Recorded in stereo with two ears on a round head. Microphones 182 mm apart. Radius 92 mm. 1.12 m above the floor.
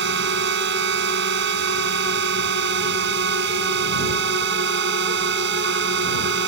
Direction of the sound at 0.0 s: 55° right (ahead or behind).